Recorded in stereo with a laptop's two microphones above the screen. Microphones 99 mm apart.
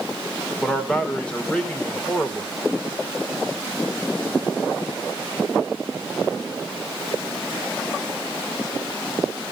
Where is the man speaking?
10° left (ahead or behind), 3 m.